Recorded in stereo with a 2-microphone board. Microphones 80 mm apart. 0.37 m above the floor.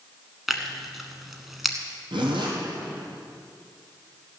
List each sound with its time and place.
0.5 s tearing paper: centre (ahead or behind), 1.2 m
2.1 s a zipper: 90° right, 3 m